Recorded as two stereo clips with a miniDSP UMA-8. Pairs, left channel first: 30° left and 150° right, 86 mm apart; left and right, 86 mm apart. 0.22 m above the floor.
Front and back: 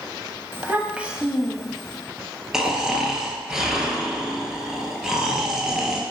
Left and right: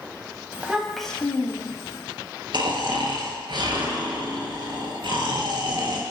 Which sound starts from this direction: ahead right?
Snoring, at 2.5 s.